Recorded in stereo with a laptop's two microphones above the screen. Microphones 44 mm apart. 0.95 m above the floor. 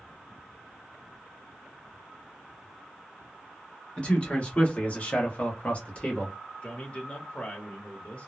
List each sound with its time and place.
4.0 s a man speaking: 25° left (ahead or behind), 1.3 m; by 6.3 s 30° left (ahead or behind), 1.0 m
6.6 s a man speaking: 25° left (ahead or behind), 1.1 m